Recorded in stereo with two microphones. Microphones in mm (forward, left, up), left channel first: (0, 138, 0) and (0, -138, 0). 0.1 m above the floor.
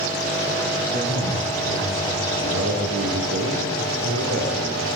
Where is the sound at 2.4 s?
65° right (ahead or behind), 8 m.